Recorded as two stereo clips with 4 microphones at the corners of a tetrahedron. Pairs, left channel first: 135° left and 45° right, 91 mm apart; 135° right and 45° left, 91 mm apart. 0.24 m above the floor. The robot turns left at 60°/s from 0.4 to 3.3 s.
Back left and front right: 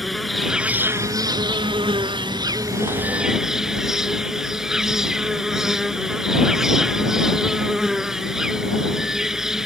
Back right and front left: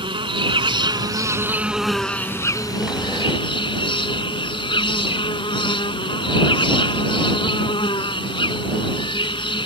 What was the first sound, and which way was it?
An insect, 45° left.